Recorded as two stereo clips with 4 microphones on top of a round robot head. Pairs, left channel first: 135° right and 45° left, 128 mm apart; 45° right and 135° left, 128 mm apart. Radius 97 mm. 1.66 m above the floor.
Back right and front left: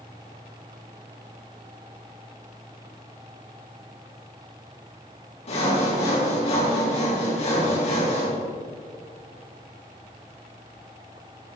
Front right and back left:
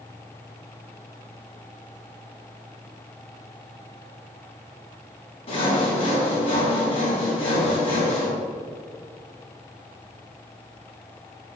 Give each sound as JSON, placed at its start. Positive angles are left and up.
{"t": 5.5, "sound": "sawing", "azimuth_deg": -95, "distance_m": 5.0}